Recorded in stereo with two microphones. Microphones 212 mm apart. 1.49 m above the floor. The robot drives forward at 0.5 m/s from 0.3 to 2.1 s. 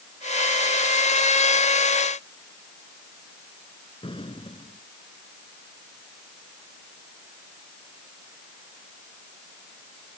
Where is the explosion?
25° left (ahead or behind).